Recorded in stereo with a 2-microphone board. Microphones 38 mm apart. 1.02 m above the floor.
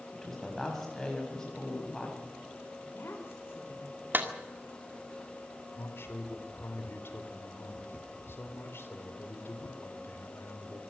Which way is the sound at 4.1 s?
55° right (ahead or behind).